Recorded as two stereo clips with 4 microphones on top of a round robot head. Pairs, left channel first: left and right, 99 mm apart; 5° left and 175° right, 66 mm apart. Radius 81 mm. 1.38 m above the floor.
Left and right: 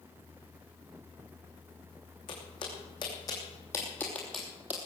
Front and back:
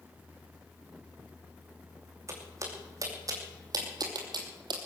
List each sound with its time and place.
2.3 s footsteps: 140° left, 4.5 m; by 4.8 s 165° right, 2 m